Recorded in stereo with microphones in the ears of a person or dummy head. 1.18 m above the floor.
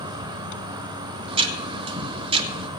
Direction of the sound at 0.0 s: 25° right (ahead or behind).